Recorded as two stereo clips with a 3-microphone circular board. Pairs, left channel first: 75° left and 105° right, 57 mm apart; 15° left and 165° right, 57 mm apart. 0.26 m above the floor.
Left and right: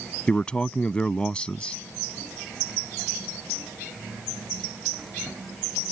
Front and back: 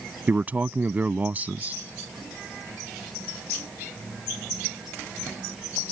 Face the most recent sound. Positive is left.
turn(degrees=145)